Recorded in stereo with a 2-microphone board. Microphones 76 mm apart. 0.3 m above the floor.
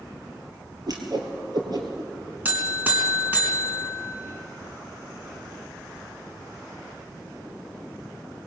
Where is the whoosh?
55° right (ahead or behind), 3.5 m.